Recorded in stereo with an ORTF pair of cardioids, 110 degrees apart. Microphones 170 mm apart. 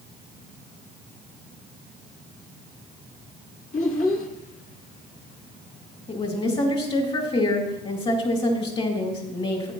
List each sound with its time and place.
3.7 s a child speaking: 50° left, 1.9 m
6.1 s a woman speaking: 30° left, 2.5 m